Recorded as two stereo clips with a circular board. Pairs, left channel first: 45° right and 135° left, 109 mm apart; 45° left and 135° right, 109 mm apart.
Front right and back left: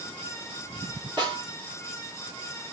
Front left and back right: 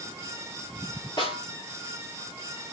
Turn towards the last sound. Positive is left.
turn(degrees=90)